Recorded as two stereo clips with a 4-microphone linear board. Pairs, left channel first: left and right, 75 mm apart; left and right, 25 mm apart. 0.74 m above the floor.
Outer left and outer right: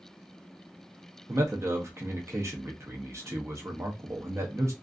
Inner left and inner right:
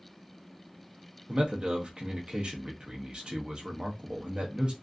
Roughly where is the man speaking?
Right.